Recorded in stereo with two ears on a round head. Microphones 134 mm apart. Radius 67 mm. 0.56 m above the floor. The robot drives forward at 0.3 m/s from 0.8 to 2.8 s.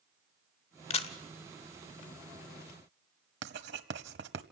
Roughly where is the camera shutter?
Left.